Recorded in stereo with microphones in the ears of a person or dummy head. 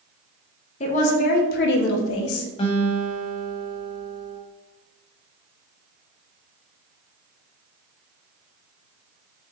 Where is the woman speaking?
35° left (ahead or behind), 1.0 m; by 2.5 s 80° left, 0.8 m.